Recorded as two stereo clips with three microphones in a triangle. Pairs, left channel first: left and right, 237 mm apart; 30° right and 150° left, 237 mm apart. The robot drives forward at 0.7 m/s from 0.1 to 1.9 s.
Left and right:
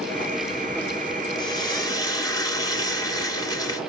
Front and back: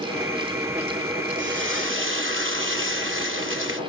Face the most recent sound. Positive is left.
turn(degrees=160)